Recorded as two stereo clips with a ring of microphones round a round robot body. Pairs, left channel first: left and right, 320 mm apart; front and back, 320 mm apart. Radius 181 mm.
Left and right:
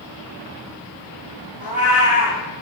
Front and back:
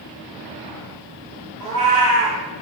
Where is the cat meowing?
175° right, 2 m.